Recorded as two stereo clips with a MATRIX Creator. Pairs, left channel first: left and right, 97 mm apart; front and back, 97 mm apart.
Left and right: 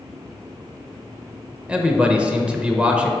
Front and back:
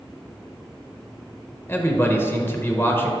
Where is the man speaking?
25° right, 0.9 m.